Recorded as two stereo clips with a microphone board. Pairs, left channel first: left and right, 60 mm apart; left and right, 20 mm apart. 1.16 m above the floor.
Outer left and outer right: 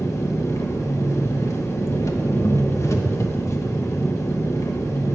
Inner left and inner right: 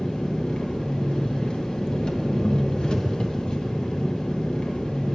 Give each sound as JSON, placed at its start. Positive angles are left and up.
{"t": 0.0, "sound": "an engine running", "side_deg": 50, "distance_m": 1.1}